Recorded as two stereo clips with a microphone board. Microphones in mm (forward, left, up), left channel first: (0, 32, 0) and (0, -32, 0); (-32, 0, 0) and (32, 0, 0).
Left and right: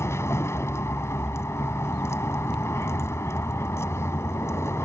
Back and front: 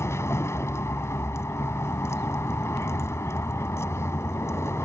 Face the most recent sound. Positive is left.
turn(degrees=135)